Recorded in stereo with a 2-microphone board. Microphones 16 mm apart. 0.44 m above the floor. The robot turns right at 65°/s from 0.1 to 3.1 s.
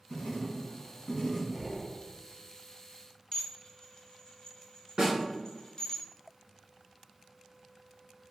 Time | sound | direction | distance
0.1 | writing | 70° left | 1.0 m
1.5 | breathing | 20° right (ahead or behind) | 0.9 m
3.3 | dishes clattering | 45° left (ahead or behind) | 0.7 m
5.0 | a snare drum | 55° right (ahead or behind) | 1.8 m